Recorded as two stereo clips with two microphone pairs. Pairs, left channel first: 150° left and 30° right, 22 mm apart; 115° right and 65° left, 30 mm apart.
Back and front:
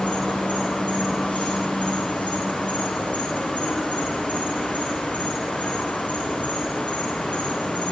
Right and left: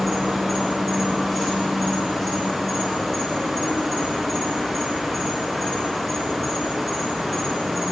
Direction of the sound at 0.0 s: 160° left.